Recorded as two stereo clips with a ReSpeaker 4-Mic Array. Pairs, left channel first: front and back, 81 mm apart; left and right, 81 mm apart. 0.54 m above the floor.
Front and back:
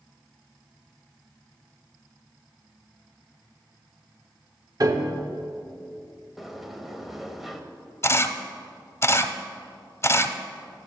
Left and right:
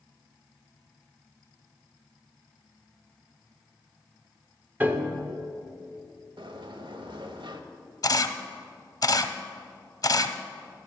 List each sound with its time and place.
4.8 s a piano: 155° right, 0.9 m
6.4 s a sliding door: 95° right, 0.8 m
8.0 s a camera shutter: 55° left, 0.6 m